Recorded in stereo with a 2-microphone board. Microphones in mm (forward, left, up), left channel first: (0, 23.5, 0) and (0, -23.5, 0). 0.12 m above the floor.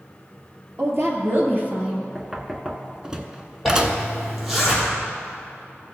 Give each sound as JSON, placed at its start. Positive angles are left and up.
{"t": 0.8, "sound": "a woman speaking", "side_deg": -55, "distance_m": 2.5}
{"t": 2.1, "sound": "knocking", "side_deg": -15, "distance_m": 0.7}
{"t": 3.6, "sound": "a zipper", "side_deg": 0, "distance_m": 3.0}